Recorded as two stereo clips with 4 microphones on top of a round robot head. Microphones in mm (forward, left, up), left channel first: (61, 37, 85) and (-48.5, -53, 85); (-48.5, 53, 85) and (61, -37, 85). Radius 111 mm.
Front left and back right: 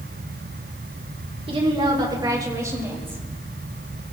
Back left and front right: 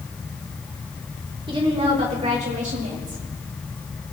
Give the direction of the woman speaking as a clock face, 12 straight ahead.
3 o'clock.